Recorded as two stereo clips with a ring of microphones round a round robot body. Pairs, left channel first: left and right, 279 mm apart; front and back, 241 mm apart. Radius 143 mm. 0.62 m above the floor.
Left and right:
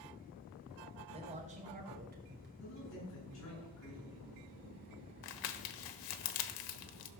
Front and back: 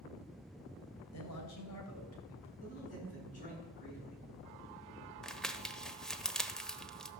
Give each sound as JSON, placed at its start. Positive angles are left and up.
{"t": 1.1, "sound": "a man speaking", "azimuth_deg": -20, "distance_m": 3.0}
{"t": 2.6, "sound": "a man speaking", "azimuth_deg": 55, "distance_m": 7.5}
{"t": 5.2, "sound": "crumpling", "azimuth_deg": 90, "distance_m": 1.0}